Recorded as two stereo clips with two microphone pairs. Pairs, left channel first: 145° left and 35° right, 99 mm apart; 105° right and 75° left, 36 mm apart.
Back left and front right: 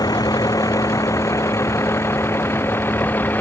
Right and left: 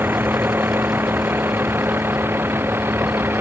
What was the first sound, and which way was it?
A vehicle, 95° left.